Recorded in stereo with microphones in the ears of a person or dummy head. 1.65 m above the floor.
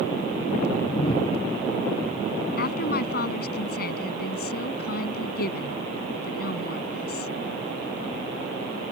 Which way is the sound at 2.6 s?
60° left (ahead or behind).